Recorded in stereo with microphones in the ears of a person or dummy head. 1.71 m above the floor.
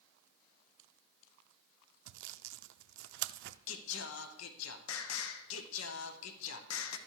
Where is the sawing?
70° right (ahead or behind), 0.5 m.